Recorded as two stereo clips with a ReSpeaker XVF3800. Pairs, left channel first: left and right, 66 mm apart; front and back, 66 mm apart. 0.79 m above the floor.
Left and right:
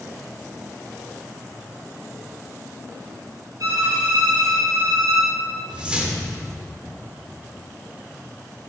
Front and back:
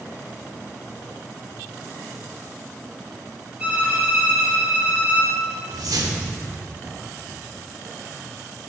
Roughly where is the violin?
Right.